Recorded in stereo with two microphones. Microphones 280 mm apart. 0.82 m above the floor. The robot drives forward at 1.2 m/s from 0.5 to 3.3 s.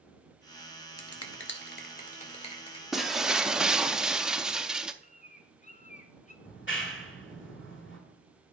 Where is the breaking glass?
Centre (ahead or behind), 1.0 m; by 4.9 s 5° right (ahead or behind), 0.5 m.